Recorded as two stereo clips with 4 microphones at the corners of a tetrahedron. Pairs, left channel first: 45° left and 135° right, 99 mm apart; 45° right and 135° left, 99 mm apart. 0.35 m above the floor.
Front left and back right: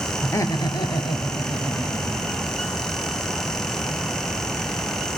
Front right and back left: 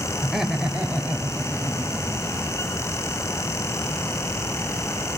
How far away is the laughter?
About 0.9 m.